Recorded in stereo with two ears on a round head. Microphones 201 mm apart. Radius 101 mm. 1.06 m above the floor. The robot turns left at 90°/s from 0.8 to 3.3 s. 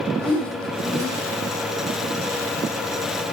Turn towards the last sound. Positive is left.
turn(degrees=140)